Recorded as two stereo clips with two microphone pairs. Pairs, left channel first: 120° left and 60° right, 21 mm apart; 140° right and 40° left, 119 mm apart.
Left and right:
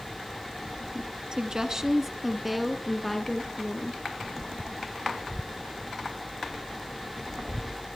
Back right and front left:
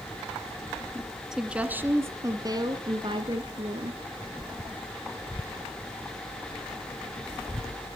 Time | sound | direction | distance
1.3 | a woman speaking | 40° right | 1.7 m